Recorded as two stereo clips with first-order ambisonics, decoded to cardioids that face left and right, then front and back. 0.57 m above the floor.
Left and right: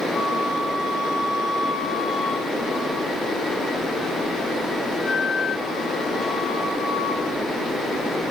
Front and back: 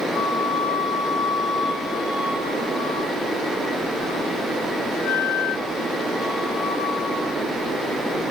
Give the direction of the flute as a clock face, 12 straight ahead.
11 o'clock.